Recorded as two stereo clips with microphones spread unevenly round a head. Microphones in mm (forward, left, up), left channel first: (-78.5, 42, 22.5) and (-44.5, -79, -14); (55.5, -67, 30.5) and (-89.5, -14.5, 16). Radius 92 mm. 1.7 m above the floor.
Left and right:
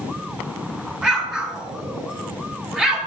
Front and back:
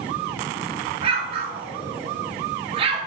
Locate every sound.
1.0 s an explosion: 170° left, 1.0 m